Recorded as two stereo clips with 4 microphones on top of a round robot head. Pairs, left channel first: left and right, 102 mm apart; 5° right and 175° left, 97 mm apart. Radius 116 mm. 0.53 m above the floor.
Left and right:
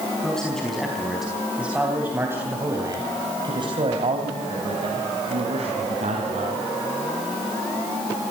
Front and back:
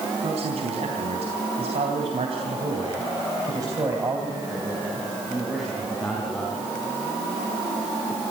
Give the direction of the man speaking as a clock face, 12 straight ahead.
6 o'clock.